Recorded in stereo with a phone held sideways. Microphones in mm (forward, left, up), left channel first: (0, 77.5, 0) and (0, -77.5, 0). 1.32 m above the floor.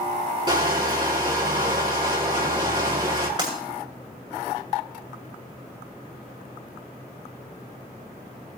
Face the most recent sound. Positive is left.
turn(degrees=-30)  # may be behind; listen again after turning